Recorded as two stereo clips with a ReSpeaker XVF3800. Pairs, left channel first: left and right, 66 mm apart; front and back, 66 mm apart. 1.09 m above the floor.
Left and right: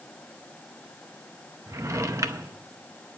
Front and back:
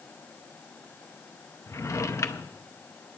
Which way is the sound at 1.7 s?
45° right.